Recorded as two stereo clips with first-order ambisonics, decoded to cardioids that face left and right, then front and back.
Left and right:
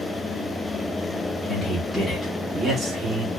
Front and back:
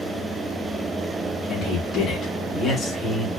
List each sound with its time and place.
1.5 s a man speaking: 35° left, 1.0 m; by 3.3 s 80° right, 1.0 m